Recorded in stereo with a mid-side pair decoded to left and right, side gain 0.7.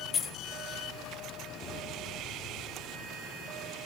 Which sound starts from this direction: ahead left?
Keys jangling, at 0.1 s.